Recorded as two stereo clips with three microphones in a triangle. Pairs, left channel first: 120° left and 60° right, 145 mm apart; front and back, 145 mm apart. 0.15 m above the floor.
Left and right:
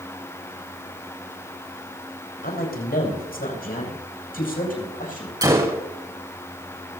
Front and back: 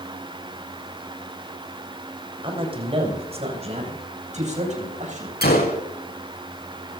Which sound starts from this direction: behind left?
A man speaking, at 2.4 s.